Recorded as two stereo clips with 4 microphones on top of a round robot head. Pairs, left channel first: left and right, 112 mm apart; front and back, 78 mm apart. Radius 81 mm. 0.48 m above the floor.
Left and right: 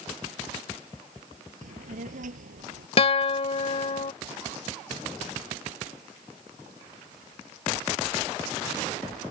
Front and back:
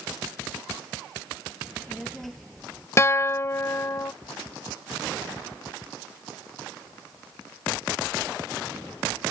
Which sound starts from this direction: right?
A child speaking, at 1.6 s.